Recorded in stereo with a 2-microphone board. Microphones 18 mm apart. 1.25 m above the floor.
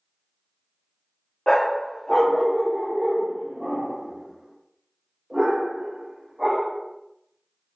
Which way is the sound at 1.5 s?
30° left (ahead or behind).